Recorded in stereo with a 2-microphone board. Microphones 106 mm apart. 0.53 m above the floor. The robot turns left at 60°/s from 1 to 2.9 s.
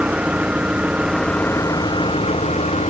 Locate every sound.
0.0 s an engine running: 170° right; by 2.9 s 75° left